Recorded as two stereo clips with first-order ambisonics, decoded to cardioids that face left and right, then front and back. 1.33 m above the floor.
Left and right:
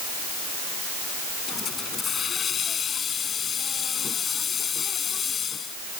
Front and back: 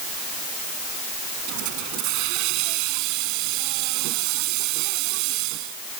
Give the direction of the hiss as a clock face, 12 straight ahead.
7 o'clock.